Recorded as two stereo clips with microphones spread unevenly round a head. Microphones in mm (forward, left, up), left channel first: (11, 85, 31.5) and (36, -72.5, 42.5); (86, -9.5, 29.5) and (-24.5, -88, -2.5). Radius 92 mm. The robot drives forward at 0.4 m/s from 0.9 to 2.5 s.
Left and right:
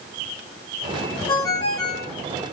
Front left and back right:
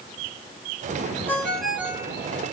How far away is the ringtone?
About 0.5 m.